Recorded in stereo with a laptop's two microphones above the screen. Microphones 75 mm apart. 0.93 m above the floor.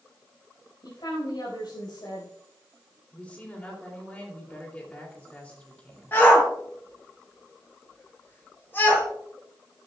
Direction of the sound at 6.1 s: 30° left (ahead or behind).